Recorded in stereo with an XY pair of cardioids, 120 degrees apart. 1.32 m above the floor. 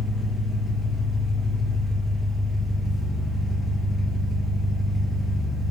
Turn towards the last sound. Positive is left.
turn(degrees=15)